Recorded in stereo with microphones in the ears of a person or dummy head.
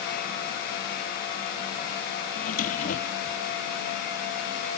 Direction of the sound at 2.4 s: 55° left (ahead or behind).